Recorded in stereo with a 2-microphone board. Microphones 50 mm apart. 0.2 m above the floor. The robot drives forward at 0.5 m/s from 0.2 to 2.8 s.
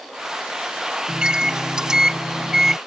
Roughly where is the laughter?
I don't hear laughter.